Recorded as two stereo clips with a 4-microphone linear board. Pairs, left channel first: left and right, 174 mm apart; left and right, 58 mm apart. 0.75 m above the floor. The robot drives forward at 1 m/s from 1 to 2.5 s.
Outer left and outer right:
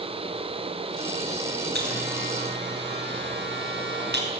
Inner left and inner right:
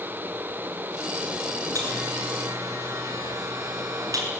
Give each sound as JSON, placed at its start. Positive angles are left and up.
{"t": 1.8, "sound": "a buzzer", "side_deg": -70, "distance_m": 6.5}